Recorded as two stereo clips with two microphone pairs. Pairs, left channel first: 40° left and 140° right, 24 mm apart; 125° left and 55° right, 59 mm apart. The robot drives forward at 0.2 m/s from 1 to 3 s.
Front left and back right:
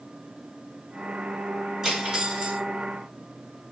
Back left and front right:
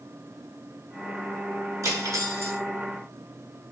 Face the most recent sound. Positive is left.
turn(degrees=-95)